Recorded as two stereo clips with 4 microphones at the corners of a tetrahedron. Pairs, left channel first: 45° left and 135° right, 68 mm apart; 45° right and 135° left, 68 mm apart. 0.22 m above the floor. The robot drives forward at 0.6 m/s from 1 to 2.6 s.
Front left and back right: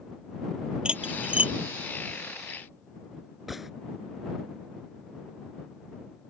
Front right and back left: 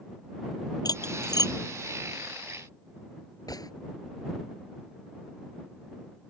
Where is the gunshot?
50° right.